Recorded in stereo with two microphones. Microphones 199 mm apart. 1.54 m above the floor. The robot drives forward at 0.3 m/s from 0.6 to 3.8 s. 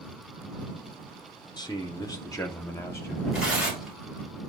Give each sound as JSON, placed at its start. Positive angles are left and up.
{"t": 1.6, "sound": "a man speaking", "side_deg": 20, "distance_m": 0.7}
{"t": 3.3, "sound": "tearing paper", "side_deg": -5, "distance_m": 1.9}